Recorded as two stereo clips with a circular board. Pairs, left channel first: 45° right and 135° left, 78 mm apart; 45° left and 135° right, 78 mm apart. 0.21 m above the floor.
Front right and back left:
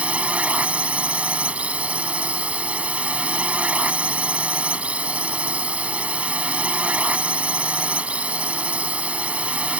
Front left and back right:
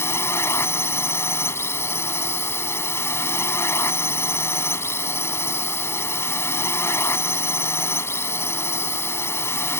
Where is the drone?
70° left.